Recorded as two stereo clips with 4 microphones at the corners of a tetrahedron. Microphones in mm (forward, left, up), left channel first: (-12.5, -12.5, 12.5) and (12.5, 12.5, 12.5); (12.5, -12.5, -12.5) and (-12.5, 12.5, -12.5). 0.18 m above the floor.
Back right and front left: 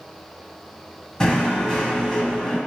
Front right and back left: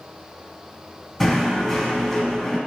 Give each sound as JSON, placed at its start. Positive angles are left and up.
{"t": 1.2, "sound": "knocking", "azimuth_deg": -120, "distance_m": 0.7}